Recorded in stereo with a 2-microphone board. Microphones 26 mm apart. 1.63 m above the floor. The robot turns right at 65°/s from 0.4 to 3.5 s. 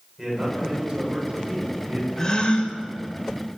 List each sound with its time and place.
0.2 s a man speaking: 170° right, 8 m; by 2.1 s 60° right, 8 m
2.2 s a gasp: 20° left, 2.5 m; by 2.8 s 55° left, 2.5 m